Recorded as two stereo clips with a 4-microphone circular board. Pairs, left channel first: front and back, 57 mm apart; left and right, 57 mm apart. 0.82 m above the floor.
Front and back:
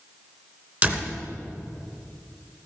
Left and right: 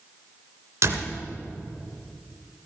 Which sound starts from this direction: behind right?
A door slam, at 0.8 s.